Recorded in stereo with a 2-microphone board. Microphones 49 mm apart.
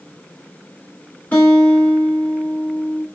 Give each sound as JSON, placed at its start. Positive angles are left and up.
{"t": 1.3, "sound": "a guitar", "side_deg": 35, "distance_m": 3.5}